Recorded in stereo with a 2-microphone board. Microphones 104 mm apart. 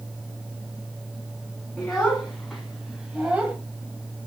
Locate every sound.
1.8 s a child speaking: 5° left (ahead or behind), 3 m; by 3.6 s 15° right (ahead or behind), 1.4 m